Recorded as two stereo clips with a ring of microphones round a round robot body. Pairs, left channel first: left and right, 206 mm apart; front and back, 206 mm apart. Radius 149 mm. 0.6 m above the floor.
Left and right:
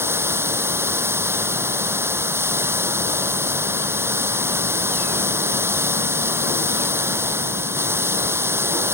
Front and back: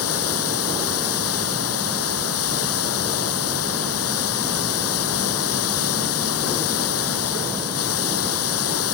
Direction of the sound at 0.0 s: 10° right.